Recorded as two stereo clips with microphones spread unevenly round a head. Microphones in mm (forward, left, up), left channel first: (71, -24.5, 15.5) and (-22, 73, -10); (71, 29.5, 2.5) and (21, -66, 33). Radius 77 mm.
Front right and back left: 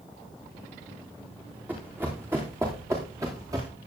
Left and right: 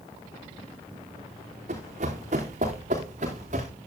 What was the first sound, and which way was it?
Running footsteps, 145° right.